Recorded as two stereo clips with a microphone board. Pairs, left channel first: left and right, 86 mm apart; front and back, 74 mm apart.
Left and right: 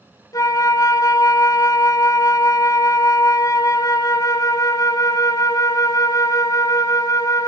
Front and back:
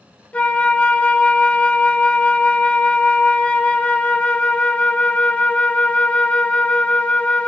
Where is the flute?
65° left, 0.7 m.